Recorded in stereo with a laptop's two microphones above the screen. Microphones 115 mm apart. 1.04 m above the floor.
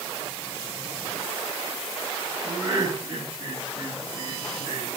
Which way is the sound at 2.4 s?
40° right (ahead or behind).